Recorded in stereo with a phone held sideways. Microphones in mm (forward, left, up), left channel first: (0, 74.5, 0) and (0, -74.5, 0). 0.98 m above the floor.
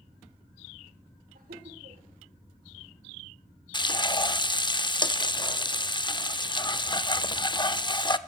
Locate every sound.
1.4 s laughter: 75° right (ahead or behind), 3 m
3.7 s frying: 30° left (ahead or behind), 0.8 m